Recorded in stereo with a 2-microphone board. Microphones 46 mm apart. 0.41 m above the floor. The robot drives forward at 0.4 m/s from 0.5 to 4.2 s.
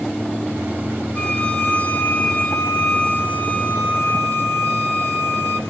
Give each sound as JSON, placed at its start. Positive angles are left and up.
{"t": 1.1, "sound": "a violin", "side_deg": 35, "distance_m": 2.5}